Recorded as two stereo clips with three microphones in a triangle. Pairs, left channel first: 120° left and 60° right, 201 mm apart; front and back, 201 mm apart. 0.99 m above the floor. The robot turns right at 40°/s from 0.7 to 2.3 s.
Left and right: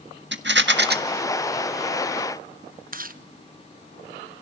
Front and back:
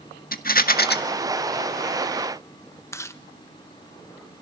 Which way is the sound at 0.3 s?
40° right.